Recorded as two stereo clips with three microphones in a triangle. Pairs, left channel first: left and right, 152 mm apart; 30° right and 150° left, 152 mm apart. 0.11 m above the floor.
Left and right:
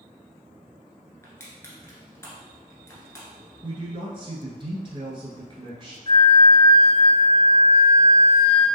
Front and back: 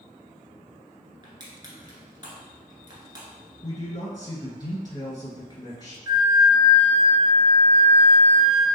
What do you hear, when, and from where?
1.2 s crushing: 140° left, 0.9 m
3.6 s a man speaking: 70° right, 1.2 m
6.1 s a flute: 105° left, 1.9 m